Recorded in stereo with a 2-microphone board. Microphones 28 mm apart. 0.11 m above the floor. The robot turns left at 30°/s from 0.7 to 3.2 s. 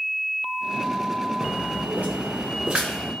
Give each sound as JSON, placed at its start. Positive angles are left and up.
{"t": 1.4, "sound": "footsteps", "side_deg": -75, "distance_m": 1.0}